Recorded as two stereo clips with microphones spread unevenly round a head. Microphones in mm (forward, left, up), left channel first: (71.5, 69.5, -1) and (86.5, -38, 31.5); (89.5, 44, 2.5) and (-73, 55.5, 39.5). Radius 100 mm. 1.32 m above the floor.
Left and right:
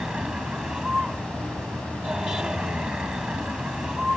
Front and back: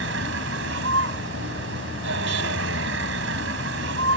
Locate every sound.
0.0 s a vehicle: 165° right